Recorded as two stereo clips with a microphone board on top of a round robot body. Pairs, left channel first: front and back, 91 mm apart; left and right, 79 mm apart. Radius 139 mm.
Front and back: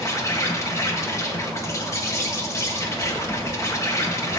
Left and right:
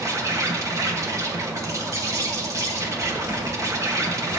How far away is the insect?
About 1.6 m.